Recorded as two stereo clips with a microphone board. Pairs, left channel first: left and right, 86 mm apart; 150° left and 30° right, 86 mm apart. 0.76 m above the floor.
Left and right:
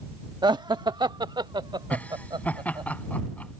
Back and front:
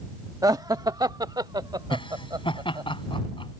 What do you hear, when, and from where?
0.4 s laughter: 70° right; by 2.9 s 65° right
1.9 s laughter: 165° left